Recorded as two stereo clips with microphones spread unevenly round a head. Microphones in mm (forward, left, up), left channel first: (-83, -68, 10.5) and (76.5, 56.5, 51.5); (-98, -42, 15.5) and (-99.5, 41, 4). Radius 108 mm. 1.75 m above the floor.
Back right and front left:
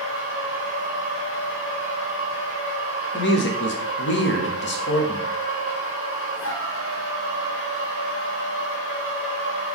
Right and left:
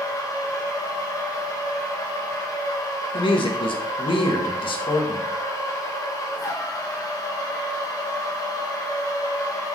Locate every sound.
0.0 s a machine running: 110° right, 0.9 m
3.1 s a woman speaking: 105° right, 0.9 m